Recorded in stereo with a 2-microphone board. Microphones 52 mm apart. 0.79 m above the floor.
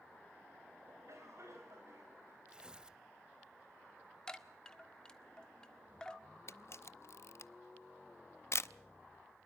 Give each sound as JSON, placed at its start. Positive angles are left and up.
{"t": 0.9, "sound": "a cough", "side_deg": -60, "distance_m": 4.5}
{"t": 2.5, "sound": "tearing paper", "side_deg": -15, "distance_m": 0.7}
{"t": 4.3, "sound": "a chime", "side_deg": 15, "distance_m": 1.3}
{"t": 6.5, "sound": "a camera shutter", "side_deg": 55, "distance_m": 0.5}